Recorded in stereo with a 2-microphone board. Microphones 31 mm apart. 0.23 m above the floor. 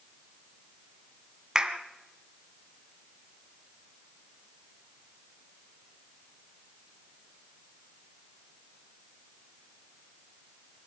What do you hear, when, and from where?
1.6 s a clap: 25° right (ahead or behind), 1.6 m